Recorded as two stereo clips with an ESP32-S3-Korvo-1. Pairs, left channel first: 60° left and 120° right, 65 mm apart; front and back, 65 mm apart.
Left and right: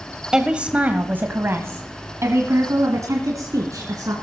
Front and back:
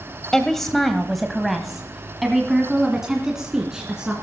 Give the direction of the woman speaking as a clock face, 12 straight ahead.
2 o'clock.